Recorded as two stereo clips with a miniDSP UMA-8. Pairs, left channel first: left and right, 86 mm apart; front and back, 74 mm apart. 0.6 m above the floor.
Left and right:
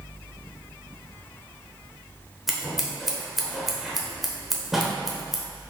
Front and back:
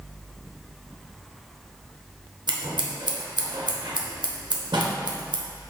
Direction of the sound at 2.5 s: Straight behind.